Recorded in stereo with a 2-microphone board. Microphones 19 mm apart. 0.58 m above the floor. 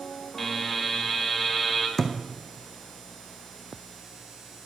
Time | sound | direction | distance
0.4 | a buzzer | 10° left (ahead or behind) | 2 m
2.0 | a thud | 20° left (ahead or behind) | 1.6 m